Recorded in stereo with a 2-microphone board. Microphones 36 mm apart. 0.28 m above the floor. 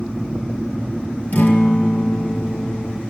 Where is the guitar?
45° left (ahead or behind), 1.9 m.